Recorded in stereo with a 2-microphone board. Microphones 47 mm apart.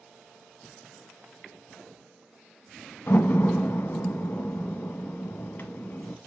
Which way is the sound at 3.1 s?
50° left (ahead or behind).